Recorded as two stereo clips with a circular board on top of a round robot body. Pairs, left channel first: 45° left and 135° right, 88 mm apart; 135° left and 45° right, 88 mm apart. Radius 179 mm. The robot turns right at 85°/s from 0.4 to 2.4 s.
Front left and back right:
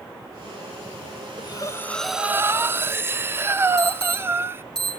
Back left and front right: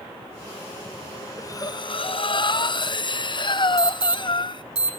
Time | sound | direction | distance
1.4 | breathing | 75° left | 0.9 m
3.8 | an alarm | 40° right | 7.5 m